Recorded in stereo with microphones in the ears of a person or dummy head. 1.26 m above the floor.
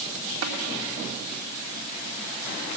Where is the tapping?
70° right (ahead or behind), 1.8 m.